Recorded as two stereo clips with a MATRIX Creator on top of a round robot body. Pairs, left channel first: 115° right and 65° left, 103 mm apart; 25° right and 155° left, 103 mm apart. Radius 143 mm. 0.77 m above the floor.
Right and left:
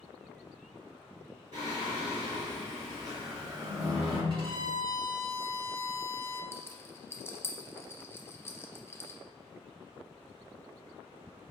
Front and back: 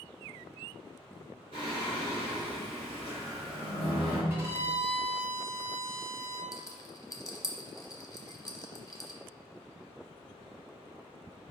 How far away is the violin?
About 1.8 m.